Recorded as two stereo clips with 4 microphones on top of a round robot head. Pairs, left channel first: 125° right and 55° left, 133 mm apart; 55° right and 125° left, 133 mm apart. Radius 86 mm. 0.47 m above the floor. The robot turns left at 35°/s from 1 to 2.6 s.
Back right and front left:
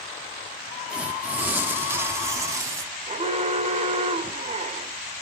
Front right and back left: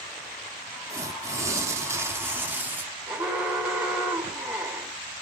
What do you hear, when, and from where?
0.9 s tearing paper: 125° left, 1.3 m; by 2.9 s 70° left, 1.3 m
3.1 s an alarm: 45° left, 1.9 m